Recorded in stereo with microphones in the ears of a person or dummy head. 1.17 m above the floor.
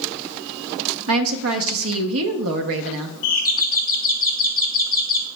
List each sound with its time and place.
1.1 s a woman speaking: 75° right (ahead or behind), 0.8 m
3.2 s a doorbell: 55° left (ahead or behind), 1.5 m